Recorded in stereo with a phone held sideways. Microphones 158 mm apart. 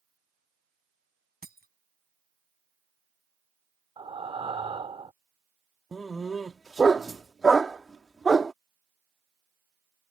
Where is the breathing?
35° right (ahead or behind).